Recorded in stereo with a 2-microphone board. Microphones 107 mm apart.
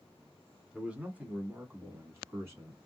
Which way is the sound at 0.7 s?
10° right (ahead or behind).